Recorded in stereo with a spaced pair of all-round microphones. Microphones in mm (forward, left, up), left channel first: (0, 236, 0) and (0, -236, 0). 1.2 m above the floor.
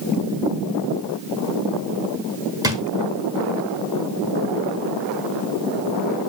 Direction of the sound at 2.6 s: 10° right (ahead or behind).